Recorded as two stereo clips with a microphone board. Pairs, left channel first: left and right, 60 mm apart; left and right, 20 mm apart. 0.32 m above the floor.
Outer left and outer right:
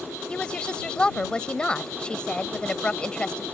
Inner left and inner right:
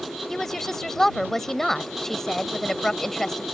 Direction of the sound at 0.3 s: 15° left (ahead or behind).